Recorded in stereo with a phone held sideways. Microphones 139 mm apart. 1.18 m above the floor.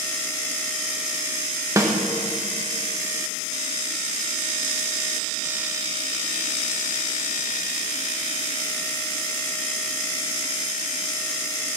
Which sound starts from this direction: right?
A snare drum, at 1.8 s.